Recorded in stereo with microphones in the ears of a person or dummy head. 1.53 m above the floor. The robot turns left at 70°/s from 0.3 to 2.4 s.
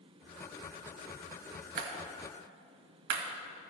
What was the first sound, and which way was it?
A clap, 65° right (ahead or behind).